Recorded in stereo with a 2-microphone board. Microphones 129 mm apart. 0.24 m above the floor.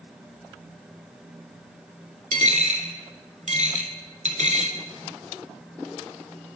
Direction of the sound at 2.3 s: 70° right (ahead or behind).